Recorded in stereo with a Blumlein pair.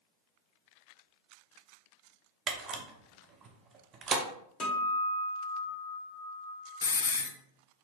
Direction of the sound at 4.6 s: 20° left.